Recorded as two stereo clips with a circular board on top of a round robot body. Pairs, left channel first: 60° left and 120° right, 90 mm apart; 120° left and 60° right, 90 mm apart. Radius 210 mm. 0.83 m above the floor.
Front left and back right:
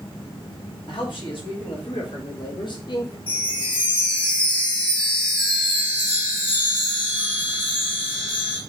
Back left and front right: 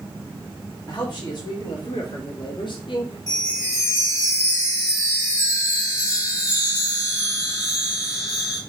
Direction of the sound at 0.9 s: 80° left.